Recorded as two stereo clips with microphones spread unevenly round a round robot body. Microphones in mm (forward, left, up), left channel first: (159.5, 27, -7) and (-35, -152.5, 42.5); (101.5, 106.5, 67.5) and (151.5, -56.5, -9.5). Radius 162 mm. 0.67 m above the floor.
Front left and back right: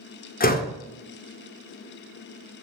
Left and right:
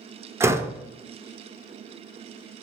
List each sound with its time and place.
0.4 s a door slam: 10° right, 1.6 m